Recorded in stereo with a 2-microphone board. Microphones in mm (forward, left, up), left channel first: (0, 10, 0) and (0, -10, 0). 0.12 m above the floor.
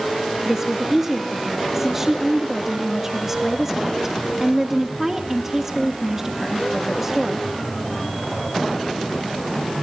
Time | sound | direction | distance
0.5 | a woman speaking | 20° right (ahead or behind) | 1.7 m